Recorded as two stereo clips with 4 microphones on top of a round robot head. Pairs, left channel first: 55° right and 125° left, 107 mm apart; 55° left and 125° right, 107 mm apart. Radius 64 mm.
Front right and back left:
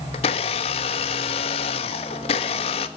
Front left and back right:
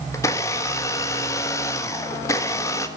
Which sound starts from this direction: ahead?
A blender, at 0.1 s.